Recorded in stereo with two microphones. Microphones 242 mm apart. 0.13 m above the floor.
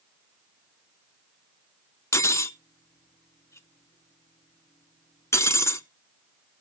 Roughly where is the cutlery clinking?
Centre.